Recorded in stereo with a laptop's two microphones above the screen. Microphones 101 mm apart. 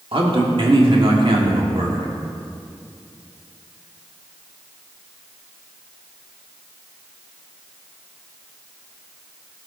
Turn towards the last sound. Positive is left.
turn(degrees=-60)  # may be behind; listen again after turning